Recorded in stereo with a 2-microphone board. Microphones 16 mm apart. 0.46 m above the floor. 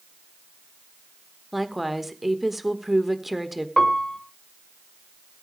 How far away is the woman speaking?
About 1.2 m.